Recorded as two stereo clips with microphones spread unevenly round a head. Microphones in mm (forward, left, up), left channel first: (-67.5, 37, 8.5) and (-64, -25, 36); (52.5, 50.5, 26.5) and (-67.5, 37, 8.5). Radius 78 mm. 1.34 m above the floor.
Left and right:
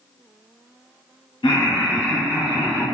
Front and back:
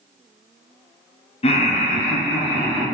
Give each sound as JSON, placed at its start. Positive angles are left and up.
{"t": 1.4, "sound": "laughter", "azimuth_deg": 40, "distance_m": 0.6}